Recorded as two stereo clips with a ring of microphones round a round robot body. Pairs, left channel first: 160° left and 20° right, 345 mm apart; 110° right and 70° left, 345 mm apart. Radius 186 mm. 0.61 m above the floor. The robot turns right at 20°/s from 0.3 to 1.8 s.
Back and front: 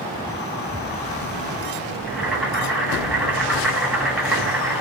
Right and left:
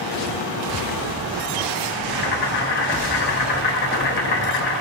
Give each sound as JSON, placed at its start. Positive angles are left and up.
{"t": 2.1, "sound": "boiling", "azimuth_deg": -110, "distance_m": 0.7}